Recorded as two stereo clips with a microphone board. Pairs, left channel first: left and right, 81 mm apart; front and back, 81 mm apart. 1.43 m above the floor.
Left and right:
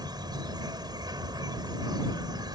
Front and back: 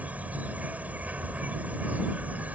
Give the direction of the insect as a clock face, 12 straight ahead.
4 o'clock.